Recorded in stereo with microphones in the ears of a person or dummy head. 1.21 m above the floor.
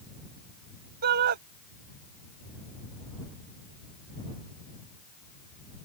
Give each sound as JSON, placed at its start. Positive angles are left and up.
{"t": 1.0, "sound": "a shout", "side_deg": -55}